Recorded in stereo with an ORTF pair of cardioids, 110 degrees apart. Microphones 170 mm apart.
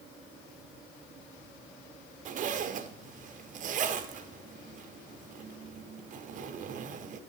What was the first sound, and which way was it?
A zipper, 50° right.